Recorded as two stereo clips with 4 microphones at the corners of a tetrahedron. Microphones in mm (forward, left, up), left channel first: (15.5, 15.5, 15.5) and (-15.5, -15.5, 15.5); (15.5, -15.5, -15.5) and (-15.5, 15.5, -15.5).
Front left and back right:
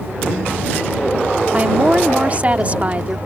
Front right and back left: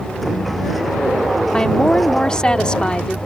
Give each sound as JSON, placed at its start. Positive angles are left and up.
{"t": 1.5, "sound": "a woman speaking", "azimuth_deg": -100}